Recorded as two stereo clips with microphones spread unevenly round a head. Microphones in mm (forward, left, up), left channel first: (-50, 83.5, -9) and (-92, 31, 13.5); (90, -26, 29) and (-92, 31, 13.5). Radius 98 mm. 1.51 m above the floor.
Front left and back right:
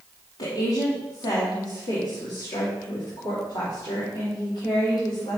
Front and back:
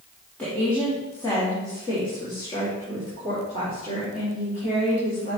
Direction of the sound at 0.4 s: 65° left.